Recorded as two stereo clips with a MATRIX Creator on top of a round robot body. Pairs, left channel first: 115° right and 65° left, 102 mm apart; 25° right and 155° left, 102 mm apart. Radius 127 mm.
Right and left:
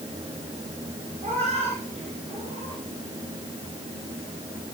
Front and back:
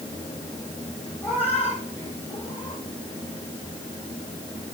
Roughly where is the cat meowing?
Ahead left.